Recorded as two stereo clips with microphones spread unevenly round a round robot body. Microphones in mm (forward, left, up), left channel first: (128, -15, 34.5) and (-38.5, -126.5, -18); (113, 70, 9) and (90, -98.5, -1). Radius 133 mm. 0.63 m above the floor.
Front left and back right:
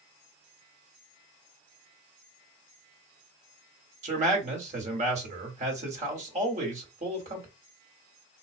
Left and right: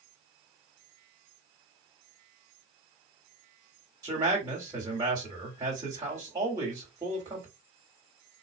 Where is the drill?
No drill in this recording.